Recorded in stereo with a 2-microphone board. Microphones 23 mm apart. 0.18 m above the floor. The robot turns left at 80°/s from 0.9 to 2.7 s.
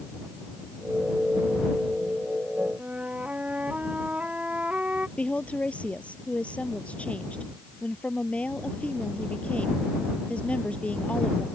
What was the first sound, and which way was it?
A flute, 75° right (ahead or behind).